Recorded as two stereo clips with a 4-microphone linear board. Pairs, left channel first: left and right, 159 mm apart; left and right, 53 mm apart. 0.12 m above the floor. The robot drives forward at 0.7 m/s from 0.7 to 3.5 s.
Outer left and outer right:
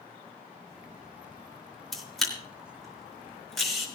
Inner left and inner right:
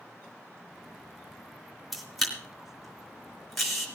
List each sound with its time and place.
1.9 s a camera shutter: centre (ahead or behind), 1.9 m